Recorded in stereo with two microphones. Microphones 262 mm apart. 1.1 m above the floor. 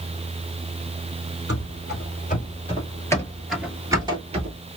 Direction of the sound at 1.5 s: 45° left (ahead or behind).